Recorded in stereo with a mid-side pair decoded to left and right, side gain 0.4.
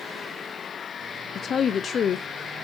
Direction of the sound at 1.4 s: 60° left.